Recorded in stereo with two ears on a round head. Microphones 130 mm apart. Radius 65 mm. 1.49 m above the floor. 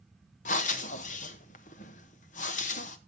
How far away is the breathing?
About 1.0 m.